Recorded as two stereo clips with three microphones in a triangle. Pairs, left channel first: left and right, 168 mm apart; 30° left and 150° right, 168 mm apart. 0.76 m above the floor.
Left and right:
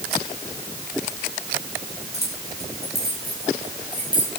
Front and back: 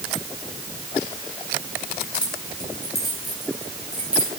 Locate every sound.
2.1 s keys jangling: 115° left, 5.5 m; by 4.3 s 125° left, 7 m